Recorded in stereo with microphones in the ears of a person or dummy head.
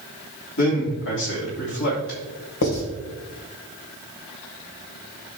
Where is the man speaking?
55° left (ahead or behind), 3 m.